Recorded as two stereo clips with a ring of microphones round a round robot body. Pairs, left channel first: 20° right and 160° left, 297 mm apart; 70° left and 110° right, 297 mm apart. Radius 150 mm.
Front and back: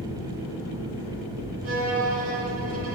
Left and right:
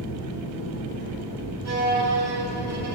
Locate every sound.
0.0 s an engine running: 95° right, 3 m
1.6 s a violin: 155° right, 1.6 m